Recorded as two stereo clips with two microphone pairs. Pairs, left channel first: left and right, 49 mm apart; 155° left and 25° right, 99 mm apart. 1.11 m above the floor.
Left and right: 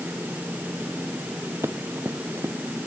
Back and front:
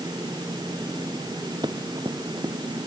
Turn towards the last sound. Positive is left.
turn(degrees=-70)